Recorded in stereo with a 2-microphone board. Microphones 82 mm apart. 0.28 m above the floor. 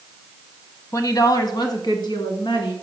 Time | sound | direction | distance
0.9 | a woman speaking | 45° left (ahead or behind) | 1.4 m